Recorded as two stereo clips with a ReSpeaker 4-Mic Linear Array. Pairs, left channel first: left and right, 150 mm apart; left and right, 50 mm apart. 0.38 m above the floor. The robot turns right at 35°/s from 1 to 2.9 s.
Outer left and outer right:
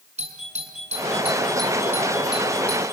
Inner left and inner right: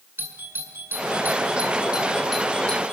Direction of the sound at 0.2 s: 45° right (ahead or behind).